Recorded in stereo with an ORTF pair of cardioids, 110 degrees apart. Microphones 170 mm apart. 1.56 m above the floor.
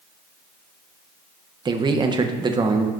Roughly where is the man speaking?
Ahead right.